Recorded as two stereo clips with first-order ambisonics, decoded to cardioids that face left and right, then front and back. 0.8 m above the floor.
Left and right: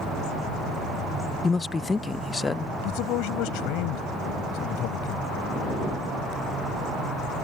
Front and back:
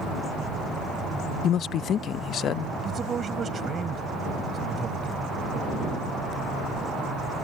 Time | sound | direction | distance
1.4 | a man speaking | 20° left | ?
2.8 | a man speaking | 115° left | ?